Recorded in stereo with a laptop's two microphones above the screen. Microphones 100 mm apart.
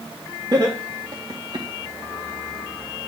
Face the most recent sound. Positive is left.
turn(degrees=-45)  # may be behind; listen again after turning